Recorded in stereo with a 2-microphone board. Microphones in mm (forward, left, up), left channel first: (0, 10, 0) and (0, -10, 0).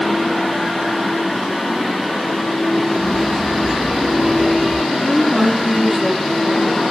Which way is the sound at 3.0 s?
70° right (ahead or behind).